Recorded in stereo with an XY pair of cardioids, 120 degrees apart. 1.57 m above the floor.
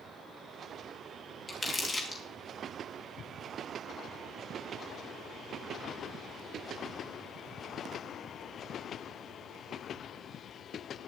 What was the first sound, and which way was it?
Crumpling, 25° left.